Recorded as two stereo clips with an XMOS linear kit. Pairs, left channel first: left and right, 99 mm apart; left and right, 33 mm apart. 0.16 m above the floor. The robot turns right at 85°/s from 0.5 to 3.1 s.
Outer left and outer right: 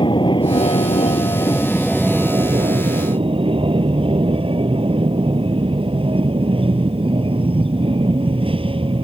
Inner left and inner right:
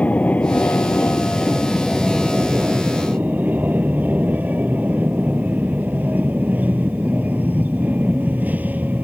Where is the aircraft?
60° left; by 9.0 s 80° right.